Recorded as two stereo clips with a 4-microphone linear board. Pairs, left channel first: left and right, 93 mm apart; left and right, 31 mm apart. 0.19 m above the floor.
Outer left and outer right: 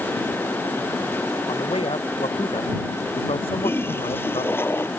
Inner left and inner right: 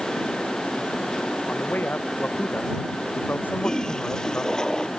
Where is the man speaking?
75° left (ahead or behind).